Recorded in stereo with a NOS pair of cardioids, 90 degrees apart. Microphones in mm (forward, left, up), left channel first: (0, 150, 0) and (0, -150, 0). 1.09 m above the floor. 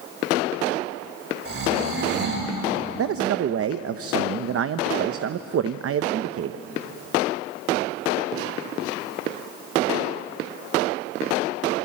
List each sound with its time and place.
1.4 s snoring: 45° right, 8 m
3.0 s a man speaking: 50° right, 0.8 m